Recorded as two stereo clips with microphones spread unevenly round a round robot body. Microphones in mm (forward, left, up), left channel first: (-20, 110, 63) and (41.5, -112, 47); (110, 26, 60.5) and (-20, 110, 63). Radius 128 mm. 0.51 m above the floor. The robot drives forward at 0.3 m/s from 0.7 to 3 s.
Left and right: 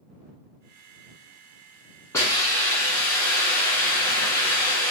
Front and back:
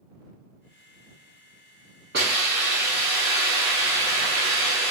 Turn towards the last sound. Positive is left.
turn(degrees=-175)